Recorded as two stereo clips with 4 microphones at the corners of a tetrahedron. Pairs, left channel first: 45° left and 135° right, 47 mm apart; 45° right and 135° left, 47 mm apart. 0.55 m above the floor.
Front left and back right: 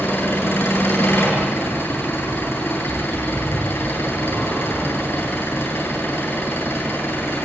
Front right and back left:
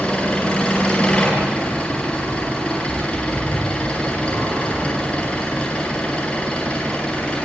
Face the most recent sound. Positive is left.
turn(degrees=10)